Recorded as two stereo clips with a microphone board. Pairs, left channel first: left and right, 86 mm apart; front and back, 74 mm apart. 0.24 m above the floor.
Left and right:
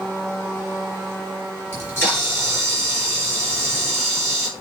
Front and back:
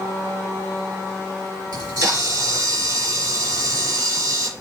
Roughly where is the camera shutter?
Behind left.